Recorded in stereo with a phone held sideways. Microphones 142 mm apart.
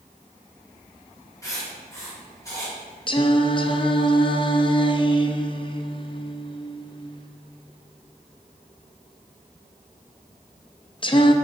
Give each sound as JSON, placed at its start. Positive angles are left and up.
{"t": 1.4, "sound": "writing", "side_deg": 20, "distance_m": 2.0}
{"t": 3.1, "sound": "singing", "side_deg": 35, "distance_m": 0.5}